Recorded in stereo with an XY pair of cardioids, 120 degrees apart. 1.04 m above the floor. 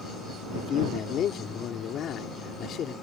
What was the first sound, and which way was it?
A man speaking, 60° left.